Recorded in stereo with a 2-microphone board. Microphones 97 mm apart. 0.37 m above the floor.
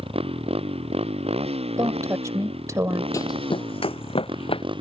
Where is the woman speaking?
35° right (ahead or behind).